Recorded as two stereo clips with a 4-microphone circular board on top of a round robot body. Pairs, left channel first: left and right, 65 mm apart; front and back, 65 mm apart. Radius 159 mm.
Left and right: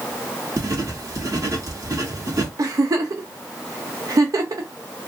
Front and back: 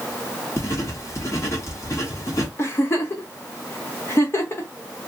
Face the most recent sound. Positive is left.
turn(degrees=-55)